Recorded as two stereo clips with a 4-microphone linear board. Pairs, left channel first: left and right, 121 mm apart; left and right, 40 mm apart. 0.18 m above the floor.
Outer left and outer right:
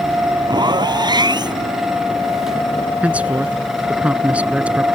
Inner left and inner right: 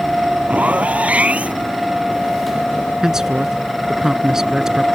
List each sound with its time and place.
0.5 s a zipper: 40° right (ahead or behind)
3.0 s a man speaking: 10° right (ahead or behind)